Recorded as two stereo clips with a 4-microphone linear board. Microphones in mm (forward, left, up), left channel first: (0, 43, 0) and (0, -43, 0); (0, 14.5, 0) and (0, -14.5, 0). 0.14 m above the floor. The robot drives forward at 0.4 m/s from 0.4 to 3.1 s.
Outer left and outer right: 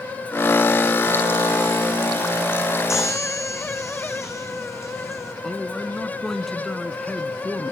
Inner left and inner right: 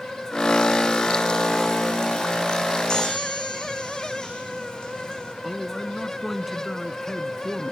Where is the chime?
35° left (ahead or behind), 6 m.